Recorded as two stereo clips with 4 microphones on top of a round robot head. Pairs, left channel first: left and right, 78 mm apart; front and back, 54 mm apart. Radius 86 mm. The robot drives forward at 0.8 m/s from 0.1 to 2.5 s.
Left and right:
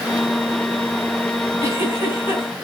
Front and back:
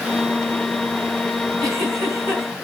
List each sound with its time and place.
1.6 s a giggle: 145° right, 5 m; by 2.5 s 150° right, 5.5 m